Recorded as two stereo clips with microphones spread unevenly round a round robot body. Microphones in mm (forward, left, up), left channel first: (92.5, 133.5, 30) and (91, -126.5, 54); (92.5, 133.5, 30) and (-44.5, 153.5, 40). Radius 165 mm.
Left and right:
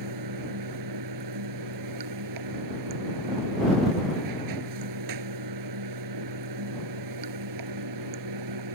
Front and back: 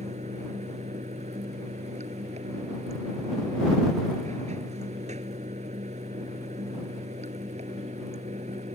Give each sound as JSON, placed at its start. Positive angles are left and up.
{"t": 0.0, "sound": "running water", "azimuth_deg": -120}